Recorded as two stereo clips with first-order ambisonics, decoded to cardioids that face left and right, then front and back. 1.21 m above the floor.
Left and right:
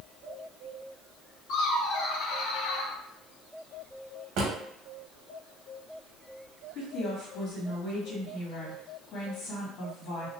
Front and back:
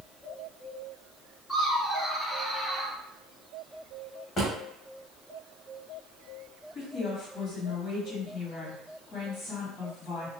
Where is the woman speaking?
50° left, 1.8 m.